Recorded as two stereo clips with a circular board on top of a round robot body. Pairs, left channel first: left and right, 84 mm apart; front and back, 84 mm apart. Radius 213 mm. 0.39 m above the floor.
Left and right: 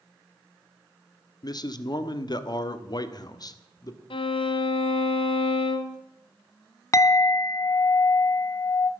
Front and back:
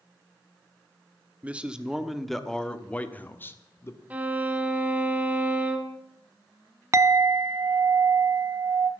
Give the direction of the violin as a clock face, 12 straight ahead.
8 o'clock.